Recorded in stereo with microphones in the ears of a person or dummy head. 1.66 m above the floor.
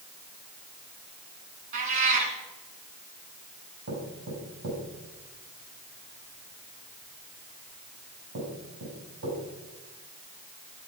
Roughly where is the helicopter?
No helicopter in this recording.